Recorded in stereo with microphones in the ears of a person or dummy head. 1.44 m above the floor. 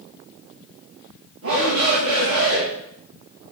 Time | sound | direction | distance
1.4 | a shout | 75° right (ahead or behind) | 2.5 m